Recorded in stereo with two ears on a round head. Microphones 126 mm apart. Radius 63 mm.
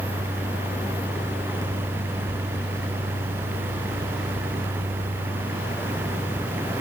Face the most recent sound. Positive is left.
No sound to turn to.